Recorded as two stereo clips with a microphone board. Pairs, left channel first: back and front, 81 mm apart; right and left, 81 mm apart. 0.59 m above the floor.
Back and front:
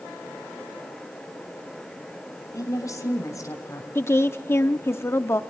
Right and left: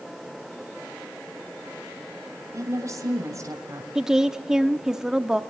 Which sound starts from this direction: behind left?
A woman speaking, at 2.5 s.